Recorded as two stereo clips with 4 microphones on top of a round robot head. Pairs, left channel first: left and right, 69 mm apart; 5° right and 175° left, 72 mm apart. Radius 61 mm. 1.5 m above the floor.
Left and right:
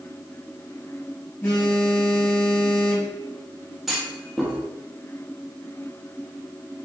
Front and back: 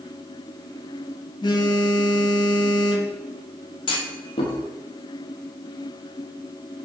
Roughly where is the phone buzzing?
Ahead.